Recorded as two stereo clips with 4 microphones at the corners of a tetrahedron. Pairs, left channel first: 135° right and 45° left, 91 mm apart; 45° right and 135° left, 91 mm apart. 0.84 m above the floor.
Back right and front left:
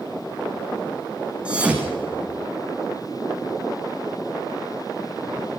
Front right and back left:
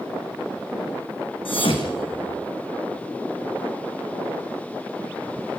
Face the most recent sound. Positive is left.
turn(degrees=-30)